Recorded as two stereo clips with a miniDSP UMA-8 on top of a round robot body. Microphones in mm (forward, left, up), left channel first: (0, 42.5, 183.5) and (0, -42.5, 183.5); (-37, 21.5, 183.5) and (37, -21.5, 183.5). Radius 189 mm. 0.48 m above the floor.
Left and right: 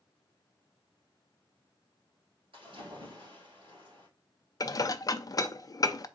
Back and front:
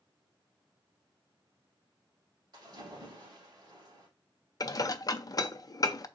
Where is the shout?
No shout in this recording.